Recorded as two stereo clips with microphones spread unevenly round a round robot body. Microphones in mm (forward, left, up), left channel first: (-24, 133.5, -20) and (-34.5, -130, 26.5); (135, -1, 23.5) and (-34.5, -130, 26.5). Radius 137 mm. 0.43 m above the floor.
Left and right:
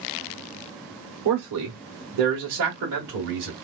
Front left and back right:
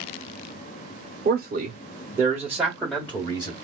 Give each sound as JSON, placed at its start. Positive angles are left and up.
{"t": 1.2, "sound": "a man speaking", "azimuth_deg": -105, "distance_m": 1.3}